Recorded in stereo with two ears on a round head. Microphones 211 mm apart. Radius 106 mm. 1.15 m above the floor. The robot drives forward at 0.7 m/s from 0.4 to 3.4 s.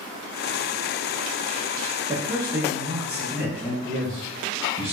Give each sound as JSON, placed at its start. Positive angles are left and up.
{"t": 2.1, "sound": "a man speaking", "side_deg": -15, "distance_m": 0.9}
{"t": 3.9, "sound": "a man speaking", "side_deg": -25, "distance_m": 1.2}